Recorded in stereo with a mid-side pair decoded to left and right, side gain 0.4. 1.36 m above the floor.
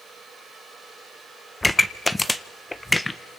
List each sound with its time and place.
1.6 s a pop: 15° left, 1.5 m